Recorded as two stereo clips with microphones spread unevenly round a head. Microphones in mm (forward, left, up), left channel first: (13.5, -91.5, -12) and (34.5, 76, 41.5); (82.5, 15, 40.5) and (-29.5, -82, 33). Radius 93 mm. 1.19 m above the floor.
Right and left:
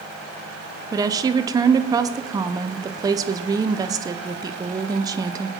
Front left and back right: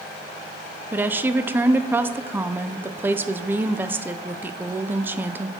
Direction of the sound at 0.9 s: 165° left.